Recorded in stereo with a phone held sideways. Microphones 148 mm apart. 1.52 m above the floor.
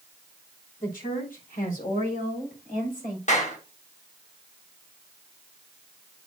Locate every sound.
0.8 s a woman speaking: 75° left (ahead or behind), 3.5 m
3.3 s a clap: 55° left (ahead or behind), 1.6 m